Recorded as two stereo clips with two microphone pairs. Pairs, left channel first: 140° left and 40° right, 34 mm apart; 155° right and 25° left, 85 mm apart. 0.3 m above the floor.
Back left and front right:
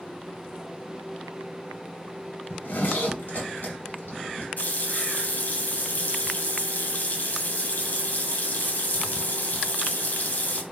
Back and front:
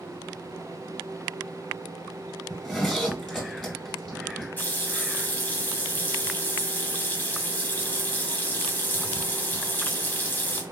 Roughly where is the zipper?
Behind left.